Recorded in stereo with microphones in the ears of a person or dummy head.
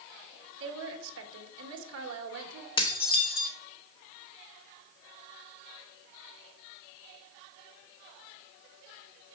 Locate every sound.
0.6 s a woman speaking: 70° right (ahead or behind), 2.0 m
2.8 s dishes clattering: 30° left (ahead or behind), 1.1 m